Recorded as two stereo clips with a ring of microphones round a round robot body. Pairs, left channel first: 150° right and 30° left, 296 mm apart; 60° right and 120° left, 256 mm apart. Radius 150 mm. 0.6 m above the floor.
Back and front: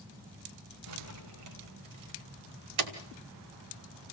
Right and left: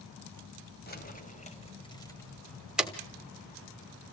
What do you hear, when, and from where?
0.9 s keys jangling: 5° right, 2.5 m; by 2.9 s 35° left, 2.5 m